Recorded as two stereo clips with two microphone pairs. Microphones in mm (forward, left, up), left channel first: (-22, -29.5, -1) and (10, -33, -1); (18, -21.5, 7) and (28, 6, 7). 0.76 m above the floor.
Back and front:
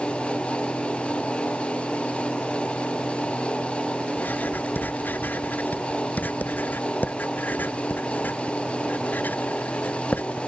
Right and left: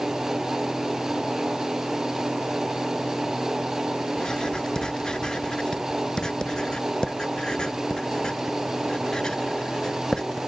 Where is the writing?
170° right.